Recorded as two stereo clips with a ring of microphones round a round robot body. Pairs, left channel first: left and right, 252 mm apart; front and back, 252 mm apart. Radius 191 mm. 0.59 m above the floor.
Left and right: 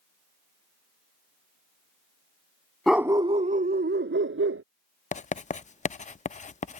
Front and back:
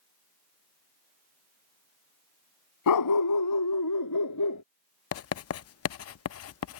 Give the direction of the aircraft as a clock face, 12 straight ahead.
No aircraft in this recording.